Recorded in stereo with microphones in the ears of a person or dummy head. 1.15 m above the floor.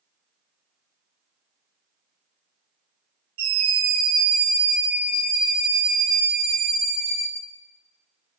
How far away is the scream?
About 7 m.